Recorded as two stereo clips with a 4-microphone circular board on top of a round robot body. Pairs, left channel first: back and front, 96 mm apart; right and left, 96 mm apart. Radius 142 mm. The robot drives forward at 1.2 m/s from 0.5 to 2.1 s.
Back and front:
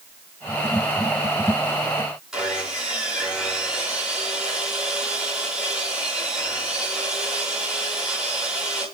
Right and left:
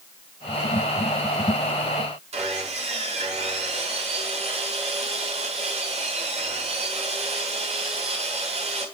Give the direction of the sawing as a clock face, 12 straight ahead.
9 o'clock.